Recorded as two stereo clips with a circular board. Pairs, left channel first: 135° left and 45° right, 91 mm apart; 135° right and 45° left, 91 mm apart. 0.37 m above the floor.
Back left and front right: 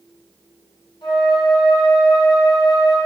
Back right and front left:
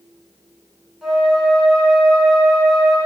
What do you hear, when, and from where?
1.0 s a flute: 130° left, 3.5 m